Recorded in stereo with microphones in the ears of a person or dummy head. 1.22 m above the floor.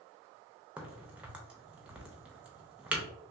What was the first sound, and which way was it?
A crack, 5° right (ahead or behind).